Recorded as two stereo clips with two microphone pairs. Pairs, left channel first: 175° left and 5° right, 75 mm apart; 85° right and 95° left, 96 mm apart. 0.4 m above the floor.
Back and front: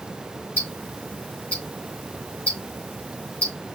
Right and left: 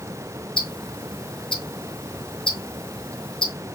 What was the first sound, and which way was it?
Ticking, 115° right.